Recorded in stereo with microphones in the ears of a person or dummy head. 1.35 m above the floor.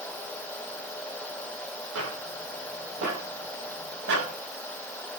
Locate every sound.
1.9 s footsteps: 80° right, 8.5 m; by 4.3 s 65° right (ahead or behind), 10 m